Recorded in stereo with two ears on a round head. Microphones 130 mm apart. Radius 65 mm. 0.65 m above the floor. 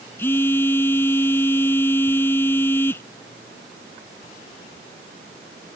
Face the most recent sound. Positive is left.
turn(degrees=15)  # may be behind; listen again after turning